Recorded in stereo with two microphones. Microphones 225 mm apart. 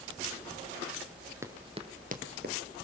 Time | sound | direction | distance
1.4 | running footsteps | 10° right (ahead or behind) | 1.5 m